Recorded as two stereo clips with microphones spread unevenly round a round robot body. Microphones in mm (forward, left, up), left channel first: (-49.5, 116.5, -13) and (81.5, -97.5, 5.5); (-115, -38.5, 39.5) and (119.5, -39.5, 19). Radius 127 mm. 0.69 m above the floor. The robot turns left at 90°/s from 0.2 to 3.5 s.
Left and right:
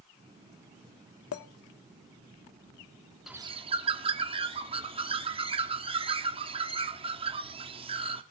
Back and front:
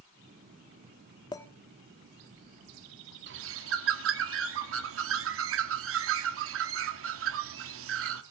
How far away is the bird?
About 1.2 m.